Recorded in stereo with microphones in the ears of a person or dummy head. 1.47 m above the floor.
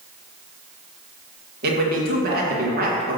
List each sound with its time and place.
1.6 s a man speaking: 55° right (ahead or behind), 1.6 m